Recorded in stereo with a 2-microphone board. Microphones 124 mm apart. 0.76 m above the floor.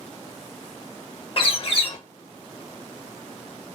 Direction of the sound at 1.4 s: 45° left (ahead or behind).